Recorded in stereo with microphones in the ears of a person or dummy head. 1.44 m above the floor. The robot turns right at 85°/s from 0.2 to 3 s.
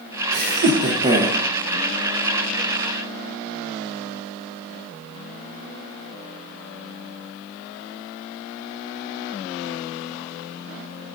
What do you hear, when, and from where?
0.3 s laughter: 95° right, 0.8 m; by 1.4 s 5° right, 0.8 m